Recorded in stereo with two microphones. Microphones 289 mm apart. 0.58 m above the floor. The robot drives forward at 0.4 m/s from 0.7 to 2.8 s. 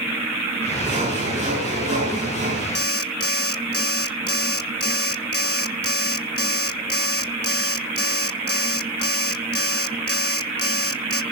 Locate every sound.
0.8 s sawing: 20° right (ahead or behind), 9 m; by 2.6 s 25° right (ahead or behind), 8 m
2.8 s an alarm clock: 55° left (ahead or behind), 0.8 m; by 11.2 s 50° left (ahead or behind), 0.8 m